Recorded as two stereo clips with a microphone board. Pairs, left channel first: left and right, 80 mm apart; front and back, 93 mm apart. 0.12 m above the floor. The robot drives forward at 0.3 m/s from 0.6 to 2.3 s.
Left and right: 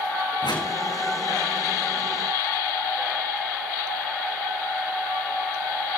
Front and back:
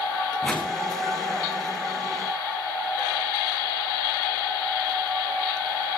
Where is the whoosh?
85° left, 4 m.